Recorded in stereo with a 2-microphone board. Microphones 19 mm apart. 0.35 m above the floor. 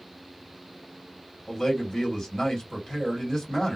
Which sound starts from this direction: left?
A man speaking, at 1.5 s.